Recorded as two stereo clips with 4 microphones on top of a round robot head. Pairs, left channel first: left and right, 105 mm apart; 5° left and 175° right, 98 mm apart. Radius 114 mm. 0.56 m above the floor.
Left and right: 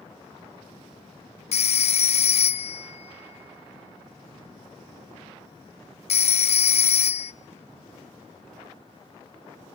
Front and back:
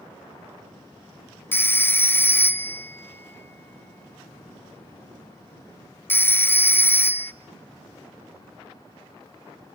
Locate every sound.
1.5 s a phone ringing: 75° left, 0.6 m